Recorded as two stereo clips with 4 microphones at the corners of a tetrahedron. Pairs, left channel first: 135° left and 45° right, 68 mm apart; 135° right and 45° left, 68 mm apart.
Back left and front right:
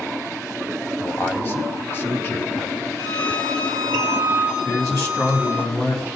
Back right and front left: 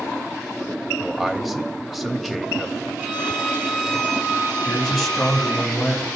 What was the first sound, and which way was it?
A man speaking, 135° left.